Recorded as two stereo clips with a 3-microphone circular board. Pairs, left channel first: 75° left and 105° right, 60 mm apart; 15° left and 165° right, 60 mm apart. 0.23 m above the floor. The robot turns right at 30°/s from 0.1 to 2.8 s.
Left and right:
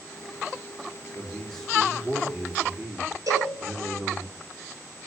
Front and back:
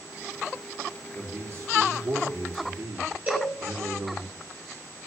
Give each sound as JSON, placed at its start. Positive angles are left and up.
{"t": 1.1, "sound": "a man speaking", "azimuth_deg": 145, "distance_m": 4.5}
{"t": 3.3, "sound": "a cowbell", "azimuth_deg": -100, "distance_m": 6.0}